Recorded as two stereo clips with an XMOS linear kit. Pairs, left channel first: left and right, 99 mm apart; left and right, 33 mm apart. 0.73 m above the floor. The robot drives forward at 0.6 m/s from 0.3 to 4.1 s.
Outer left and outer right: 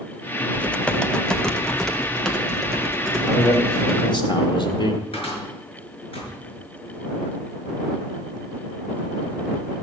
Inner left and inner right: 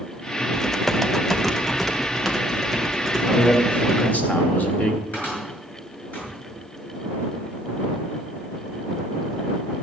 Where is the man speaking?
40° left (ahead or behind), 2 m; by 5.0 s 50° left (ahead or behind), 1.8 m.